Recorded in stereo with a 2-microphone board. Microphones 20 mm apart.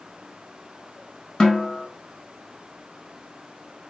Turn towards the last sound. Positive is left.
turn(degrees=40)  # may be behind; listen again after turning